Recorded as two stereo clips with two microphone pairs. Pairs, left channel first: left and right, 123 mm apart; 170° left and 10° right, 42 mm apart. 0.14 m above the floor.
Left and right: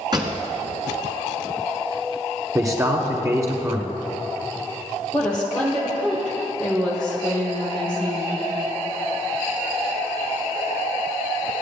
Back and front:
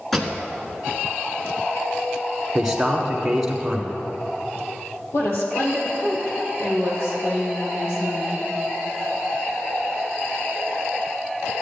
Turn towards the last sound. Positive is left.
turn(degrees=175)